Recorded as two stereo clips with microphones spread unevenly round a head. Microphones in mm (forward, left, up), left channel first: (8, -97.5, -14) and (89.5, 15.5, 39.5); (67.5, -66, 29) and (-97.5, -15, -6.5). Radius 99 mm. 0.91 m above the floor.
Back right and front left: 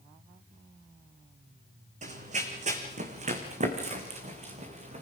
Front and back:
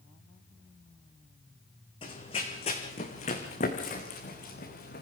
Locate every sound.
2.0 s running footsteps: 45° left, 3 m; by 5.0 s 30° left, 4 m